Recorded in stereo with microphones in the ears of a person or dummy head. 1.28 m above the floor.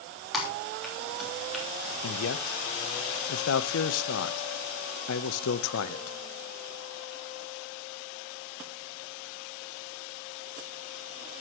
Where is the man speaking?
80° left, 0.8 m.